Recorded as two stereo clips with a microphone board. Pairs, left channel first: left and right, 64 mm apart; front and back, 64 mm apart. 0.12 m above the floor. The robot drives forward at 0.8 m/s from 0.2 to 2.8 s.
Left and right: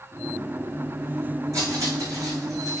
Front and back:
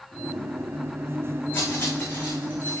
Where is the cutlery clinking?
55° right, 5.5 m; by 2.8 s 65° right, 5 m.